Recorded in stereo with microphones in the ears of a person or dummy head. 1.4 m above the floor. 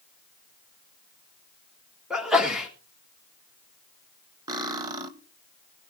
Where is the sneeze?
5° right (ahead or behind), 2.5 m.